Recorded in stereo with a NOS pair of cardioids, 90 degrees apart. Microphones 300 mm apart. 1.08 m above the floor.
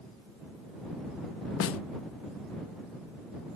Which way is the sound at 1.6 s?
50° left.